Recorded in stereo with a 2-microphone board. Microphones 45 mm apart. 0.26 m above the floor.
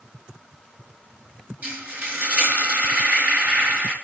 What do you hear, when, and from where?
1.6 s frying: 45° right (ahead or behind), 4.5 m